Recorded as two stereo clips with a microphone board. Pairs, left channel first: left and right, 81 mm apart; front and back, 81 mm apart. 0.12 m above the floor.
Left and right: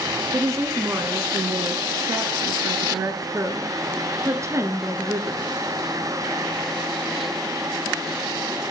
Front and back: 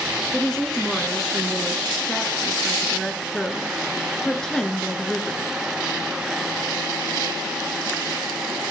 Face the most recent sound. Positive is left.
turn(degrees=-80)